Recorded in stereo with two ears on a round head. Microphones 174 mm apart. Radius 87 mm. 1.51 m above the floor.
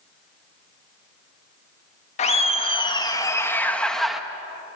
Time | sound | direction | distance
2.2 | laughter | 35° left (ahead or behind) | 1.9 m